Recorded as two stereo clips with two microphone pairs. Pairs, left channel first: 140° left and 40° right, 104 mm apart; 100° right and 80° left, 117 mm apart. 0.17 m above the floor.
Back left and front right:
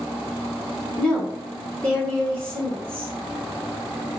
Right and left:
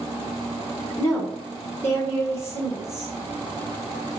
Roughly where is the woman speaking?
Behind right.